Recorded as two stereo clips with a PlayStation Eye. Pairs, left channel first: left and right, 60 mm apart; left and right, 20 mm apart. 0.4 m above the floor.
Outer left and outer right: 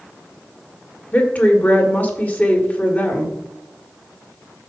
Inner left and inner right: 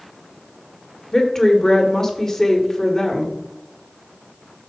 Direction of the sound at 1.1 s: 25° left (ahead or behind).